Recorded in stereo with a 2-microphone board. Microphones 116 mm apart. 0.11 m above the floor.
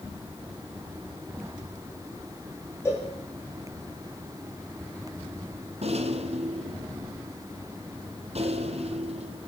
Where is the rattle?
65° right (ahead or behind), 2 m.